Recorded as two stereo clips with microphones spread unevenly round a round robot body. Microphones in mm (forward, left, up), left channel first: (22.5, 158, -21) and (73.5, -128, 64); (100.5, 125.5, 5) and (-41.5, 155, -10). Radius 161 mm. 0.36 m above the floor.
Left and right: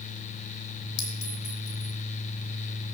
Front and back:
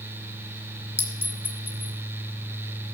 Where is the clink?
65° left, 3 m.